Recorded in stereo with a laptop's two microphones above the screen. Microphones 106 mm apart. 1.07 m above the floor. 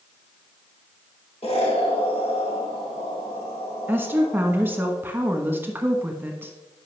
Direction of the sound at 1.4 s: 80° left.